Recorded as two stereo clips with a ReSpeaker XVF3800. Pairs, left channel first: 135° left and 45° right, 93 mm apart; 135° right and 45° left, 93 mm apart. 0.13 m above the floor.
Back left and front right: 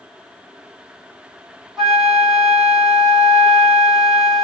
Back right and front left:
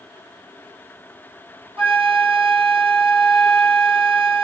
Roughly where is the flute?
Ahead left.